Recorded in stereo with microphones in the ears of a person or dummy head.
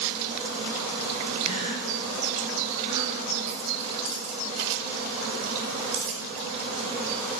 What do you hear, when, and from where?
1.4 s a gasp: 30° right (ahead or behind), 6 m
3.5 s keys jangling: 35° right (ahead or behind), 4.5 m